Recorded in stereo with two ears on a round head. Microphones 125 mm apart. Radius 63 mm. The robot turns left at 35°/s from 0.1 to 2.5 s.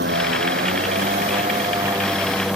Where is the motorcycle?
95° right; by 2.6 s 175° right.